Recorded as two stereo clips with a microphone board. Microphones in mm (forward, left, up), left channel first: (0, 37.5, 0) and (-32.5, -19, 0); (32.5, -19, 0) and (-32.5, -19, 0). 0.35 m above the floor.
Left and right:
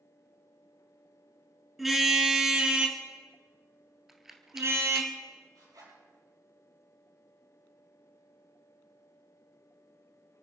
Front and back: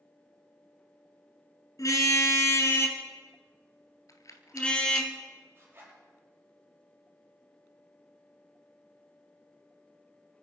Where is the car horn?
30° right, 2.5 m; by 5.1 s 80° right, 2.5 m.